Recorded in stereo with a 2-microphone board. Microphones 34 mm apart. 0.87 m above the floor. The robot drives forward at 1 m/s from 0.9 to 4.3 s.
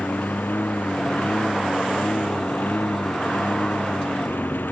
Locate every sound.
0.0 s a lawn mower: 80° left; by 4.7 s 85° left